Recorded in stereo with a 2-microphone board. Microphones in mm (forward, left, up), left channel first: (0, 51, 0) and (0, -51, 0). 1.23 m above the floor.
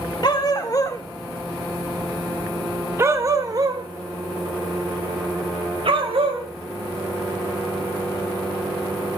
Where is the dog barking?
45° left (ahead or behind), 1.4 m; by 6.5 s 65° right (ahead or behind), 2.5 m.